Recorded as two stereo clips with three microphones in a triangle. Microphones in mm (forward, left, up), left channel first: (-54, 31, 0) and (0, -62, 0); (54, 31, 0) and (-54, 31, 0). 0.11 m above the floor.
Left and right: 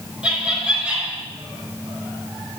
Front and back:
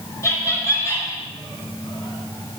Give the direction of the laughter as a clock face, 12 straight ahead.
12 o'clock.